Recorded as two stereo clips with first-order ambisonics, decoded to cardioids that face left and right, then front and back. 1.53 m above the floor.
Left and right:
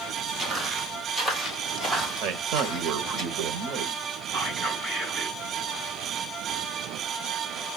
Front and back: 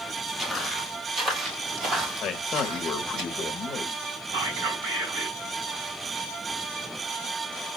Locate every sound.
0.4 s footsteps: 140° right, 1.6 m; by 3.2 s 155° left, 2.5 m
2.2 s a man speaking: 60° right, 0.8 m
4.3 s whispering: 175° left, 4.5 m